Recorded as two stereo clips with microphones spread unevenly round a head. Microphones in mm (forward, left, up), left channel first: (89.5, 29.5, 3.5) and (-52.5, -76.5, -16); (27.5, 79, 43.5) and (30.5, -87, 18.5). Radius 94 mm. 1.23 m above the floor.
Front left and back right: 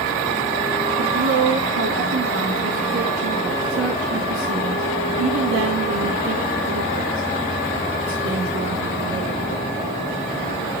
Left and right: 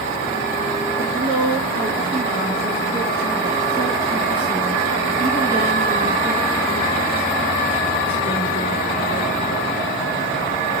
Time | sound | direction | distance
1.0 | a woman speaking | 170° right | 2.5 m